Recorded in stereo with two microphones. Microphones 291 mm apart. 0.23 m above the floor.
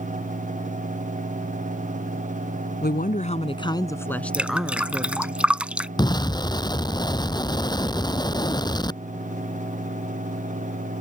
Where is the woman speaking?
35° left (ahead or behind); by 5.3 s 10° right (ahead or behind).